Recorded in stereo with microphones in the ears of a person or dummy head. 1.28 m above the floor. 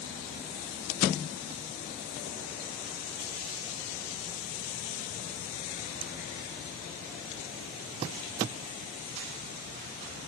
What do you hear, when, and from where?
Only background noise.